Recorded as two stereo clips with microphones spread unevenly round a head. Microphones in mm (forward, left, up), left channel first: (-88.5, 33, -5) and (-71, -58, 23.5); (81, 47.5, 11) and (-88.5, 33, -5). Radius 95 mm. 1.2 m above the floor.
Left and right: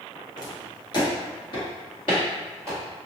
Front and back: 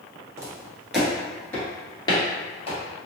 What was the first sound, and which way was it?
Footsteps, 125° left.